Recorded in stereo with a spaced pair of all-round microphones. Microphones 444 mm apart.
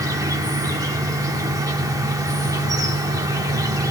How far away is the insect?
About 1.0 m.